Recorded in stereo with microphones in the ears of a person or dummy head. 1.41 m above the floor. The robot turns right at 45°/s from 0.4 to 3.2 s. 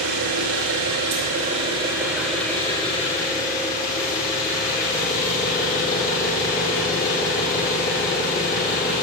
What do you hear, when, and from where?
0.0 s an engine running: 85° right, 2.5 m; by 9.0 s 40° left, 2.5 m